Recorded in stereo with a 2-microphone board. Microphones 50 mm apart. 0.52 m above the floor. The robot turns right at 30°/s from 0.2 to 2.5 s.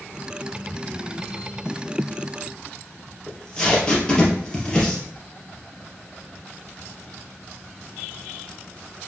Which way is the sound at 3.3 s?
15° left (ahead or behind).